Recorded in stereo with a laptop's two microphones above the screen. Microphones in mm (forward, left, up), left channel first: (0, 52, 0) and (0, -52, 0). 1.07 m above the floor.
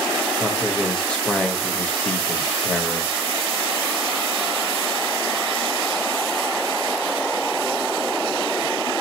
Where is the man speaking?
10° left (ahead or behind), 0.8 m.